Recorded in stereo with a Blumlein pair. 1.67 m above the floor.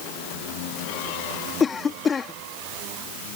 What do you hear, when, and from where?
1.6 s a cough: 15° left